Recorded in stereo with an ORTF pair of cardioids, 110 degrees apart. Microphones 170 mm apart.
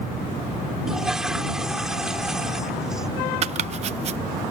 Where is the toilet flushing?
5° right.